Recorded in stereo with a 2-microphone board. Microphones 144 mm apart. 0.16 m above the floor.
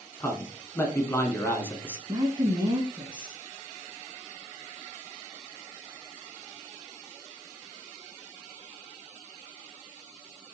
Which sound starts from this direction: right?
A woman speaking, at 2.1 s.